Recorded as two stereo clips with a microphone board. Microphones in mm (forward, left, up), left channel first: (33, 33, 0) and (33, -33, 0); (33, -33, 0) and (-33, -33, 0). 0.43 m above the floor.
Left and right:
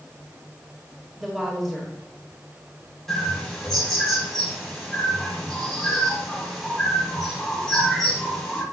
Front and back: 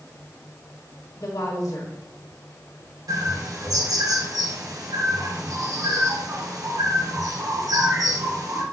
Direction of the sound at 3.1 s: 175° left.